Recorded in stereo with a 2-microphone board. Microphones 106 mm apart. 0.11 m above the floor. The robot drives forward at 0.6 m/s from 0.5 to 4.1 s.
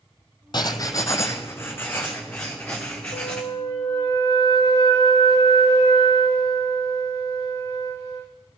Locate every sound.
0.5 s writing: 45° left (ahead or behind), 0.6 m; by 3.4 s 10° left (ahead or behind), 2 m
3.1 s a flute: 50° left (ahead or behind), 1.2 m; by 8.3 s 35° left (ahead or behind), 1.6 m